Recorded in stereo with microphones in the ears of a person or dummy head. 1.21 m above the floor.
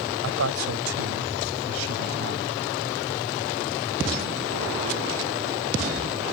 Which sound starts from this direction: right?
A man speaking, at 0.2 s.